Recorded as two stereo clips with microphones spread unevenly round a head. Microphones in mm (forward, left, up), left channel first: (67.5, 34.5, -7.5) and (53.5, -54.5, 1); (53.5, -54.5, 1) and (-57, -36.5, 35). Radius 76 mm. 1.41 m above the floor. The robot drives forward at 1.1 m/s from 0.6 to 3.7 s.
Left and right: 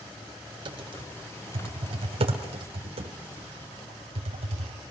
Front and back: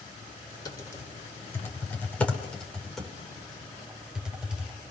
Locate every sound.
0.7 s typing on a keyboard: 65° right, 5 m; by 4.8 s 110° right, 4.5 m